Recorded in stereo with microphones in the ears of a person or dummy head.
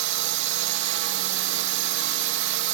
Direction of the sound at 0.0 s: 55° right (ahead or behind).